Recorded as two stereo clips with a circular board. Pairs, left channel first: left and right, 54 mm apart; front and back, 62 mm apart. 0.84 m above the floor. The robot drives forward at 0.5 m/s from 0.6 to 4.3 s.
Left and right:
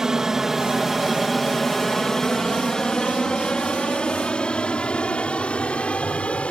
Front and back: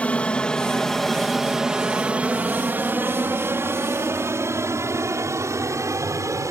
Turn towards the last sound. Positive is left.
turn(degrees=155)